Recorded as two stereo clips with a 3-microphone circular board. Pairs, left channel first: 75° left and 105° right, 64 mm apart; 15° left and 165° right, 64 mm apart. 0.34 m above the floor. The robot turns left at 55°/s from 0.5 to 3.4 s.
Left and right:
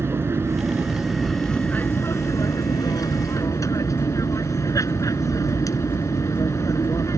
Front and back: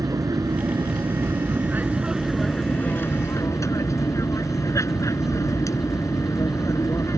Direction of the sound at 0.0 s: 155° right.